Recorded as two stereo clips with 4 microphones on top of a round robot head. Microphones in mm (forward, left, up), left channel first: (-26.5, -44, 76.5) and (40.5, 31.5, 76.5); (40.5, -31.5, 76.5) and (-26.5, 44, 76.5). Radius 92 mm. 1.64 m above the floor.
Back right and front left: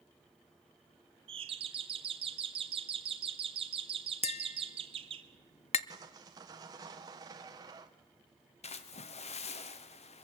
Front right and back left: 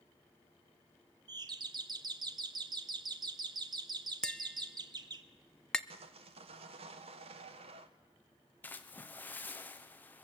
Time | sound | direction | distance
1.3 | a doorbell | 85° left | 1.3 m
4.2 | tapping | 130° right | 0.6 m
5.9 | sawing | 105° left | 1.2 m
8.6 | a splash | 120° right | 1.1 m